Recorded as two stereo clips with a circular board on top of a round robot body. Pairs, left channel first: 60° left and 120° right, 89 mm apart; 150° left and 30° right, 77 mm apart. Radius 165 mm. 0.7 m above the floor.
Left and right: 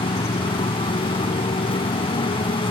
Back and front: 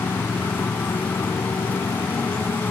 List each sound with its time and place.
0.0 s a motorcycle: 85° left